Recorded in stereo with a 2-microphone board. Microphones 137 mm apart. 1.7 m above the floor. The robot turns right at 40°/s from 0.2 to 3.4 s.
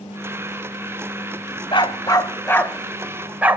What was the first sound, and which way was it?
A dog barking, 40° left (ahead or behind).